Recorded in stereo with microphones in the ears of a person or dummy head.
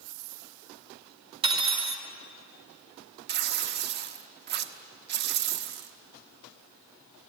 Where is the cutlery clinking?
25° right (ahead or behind), 2 m.